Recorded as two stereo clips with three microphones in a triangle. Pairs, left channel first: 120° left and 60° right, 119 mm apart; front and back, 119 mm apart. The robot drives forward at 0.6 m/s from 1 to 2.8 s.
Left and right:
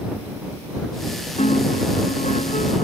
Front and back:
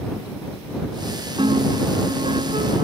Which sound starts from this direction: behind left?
A piano, at 1.4 s.